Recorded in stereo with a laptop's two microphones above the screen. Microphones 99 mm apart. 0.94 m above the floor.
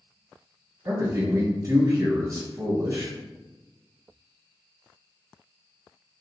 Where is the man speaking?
35° right (ahead or behind), 1.3 m.